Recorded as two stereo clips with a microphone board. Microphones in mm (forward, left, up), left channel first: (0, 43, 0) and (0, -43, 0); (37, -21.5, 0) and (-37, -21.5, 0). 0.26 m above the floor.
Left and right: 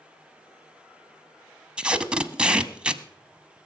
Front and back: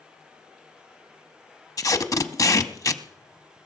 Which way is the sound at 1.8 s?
15° right.